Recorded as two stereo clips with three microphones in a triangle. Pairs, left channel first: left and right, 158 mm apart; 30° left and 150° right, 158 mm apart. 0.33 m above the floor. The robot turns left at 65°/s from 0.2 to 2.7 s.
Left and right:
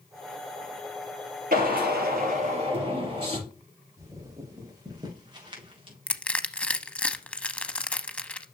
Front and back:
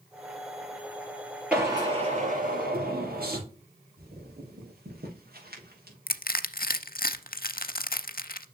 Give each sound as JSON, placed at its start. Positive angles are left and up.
{"t": 1.5, "sound": "a drill", "azimuth_deg": -70, "distance_m": 4.5}
{"t": 4.0, "sound": "footsteps", "azimuth_deg": -160, "distance_m": 5.5}
{"t": 6.1, "sound": "crushing", "azimuth_deg": 10, "distance_m": 0.6}